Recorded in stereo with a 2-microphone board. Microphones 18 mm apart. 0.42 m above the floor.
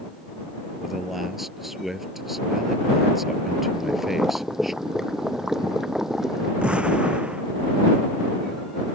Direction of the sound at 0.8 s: 10° right (ahead or behind).